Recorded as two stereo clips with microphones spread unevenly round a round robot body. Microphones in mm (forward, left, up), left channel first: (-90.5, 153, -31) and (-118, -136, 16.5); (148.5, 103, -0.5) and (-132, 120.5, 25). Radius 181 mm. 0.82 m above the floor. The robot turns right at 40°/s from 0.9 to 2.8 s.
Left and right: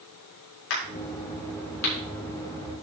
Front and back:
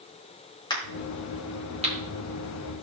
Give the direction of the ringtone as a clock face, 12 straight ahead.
No ringtone in this recording.